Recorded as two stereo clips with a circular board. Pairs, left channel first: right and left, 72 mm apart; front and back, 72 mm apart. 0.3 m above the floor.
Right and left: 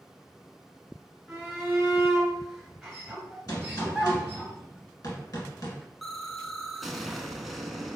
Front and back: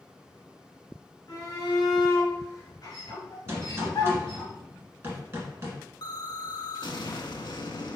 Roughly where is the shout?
Ahead.